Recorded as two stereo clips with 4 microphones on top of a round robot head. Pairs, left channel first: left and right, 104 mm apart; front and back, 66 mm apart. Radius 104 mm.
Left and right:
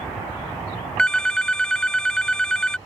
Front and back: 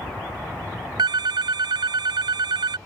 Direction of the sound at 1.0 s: 175° left.